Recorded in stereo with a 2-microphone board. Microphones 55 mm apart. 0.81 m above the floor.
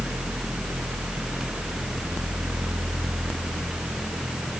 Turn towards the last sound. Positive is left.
No sound to turn to.